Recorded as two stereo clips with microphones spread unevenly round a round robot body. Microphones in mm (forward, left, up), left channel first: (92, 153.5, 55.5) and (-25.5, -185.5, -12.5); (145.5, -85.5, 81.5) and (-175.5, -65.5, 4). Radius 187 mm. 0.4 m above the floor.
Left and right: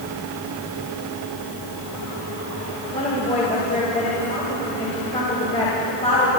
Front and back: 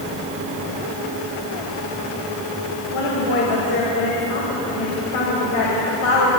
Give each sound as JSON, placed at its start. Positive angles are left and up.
{"t": 2.9, "sound": "a woman speaking", "azimuth_deg": -5, "distance_m": 3.0}